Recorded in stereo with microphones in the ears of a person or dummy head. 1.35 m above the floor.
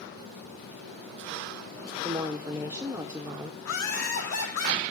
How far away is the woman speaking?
About 0.7 m.